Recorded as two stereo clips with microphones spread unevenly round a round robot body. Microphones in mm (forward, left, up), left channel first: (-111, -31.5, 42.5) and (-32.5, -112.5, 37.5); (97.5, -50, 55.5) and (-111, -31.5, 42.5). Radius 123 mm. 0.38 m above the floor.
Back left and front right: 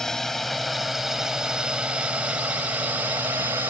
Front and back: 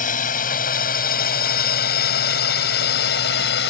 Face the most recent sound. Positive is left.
turn(degrees=25)